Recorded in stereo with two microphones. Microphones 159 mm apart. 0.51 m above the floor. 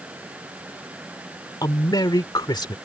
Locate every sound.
1.6 s a man speaking: 25° left (ahead or behind)